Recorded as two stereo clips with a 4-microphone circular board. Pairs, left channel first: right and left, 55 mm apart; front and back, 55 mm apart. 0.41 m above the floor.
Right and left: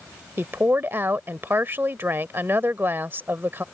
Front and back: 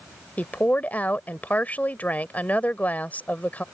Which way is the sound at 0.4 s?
55° left.